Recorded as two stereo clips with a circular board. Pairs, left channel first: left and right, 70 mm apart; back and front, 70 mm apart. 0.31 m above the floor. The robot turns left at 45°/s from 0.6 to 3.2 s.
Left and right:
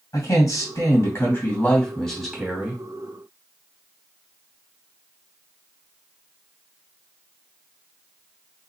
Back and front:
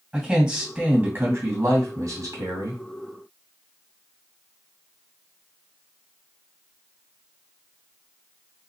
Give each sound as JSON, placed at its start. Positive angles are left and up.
{"t": 0.1, "sound": "a man speaking", "azimuth_deg": 80, "distance_m": 2.0}